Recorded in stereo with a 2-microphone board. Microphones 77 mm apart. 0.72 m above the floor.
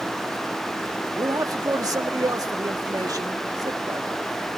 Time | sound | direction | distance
1.1 | a man speaking | 55° right (ahead or behind) | 1.4 m